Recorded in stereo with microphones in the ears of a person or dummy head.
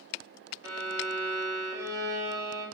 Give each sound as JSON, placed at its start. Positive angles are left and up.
{"t": 0.6, "sound": "a violin", "side_deg": -20, "distance_m": 1.1}